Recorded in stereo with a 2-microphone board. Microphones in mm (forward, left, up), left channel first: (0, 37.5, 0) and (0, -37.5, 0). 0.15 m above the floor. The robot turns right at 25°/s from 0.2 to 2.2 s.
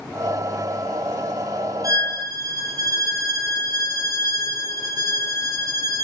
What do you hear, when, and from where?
1.8 s a violin: 55° right (ahead or behind), 0.7 m; by 6.0 s 60° right (ahead or behind), 0.7 m